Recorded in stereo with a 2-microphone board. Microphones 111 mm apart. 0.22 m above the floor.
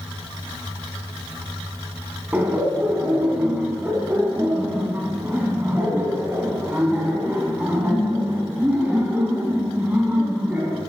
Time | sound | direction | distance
2.3 | laughter | 15° right (ahead or behind) | 2 m